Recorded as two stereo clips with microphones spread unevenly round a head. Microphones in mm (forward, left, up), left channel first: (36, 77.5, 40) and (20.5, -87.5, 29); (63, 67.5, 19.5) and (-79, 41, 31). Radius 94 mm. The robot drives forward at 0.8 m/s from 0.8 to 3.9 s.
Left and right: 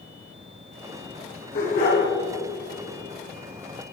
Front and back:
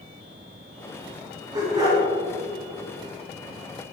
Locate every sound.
1.5 s a dog barking: 125° left, 7 m; by 2.0 s 130° left, 7.5 m